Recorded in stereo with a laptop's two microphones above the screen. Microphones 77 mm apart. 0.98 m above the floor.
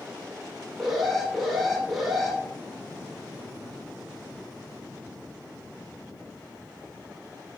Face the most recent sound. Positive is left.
turn(degrees=0)  # may be behind; listen again after turning